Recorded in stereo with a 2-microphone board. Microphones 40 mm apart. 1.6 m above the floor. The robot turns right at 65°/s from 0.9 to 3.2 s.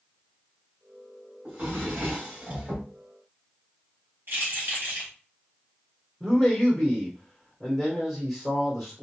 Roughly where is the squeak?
I don't hear a squeak.